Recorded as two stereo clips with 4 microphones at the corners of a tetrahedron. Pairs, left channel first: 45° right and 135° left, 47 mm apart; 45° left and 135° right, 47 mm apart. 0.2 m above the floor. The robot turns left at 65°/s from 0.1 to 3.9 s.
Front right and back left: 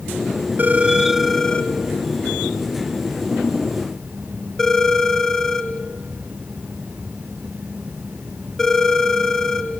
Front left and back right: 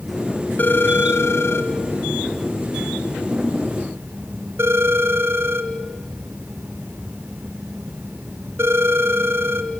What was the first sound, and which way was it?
A phone ringing, 90° left.